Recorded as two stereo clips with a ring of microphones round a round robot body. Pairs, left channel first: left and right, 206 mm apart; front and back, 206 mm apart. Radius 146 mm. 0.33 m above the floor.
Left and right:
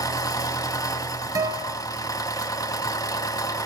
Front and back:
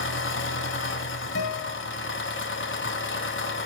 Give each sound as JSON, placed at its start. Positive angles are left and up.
{"t": 0.0, "sound": "an engine running", "azimuth_deg": 15, "distance_m": 1.6}
{"t": 1.4, "sound": "a guitar", "azimuth_deg": -20, "distance_m": 3.0}